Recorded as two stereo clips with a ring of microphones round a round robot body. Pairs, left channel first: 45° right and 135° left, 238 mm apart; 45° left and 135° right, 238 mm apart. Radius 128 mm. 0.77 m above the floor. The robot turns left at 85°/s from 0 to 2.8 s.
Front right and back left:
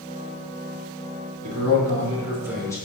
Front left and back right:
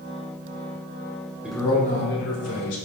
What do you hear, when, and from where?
1.4 s a man speaking: 140° left, 3 m; by 2.8 s 30° left, 3 m